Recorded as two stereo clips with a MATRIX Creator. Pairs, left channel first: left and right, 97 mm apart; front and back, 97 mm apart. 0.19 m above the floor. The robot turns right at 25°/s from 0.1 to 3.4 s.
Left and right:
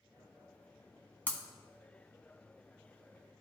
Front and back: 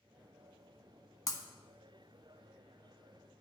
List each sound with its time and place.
1.3 s breaking glass: 25° left, 0.9 m; by 1.4 s 30° left, 0.9 m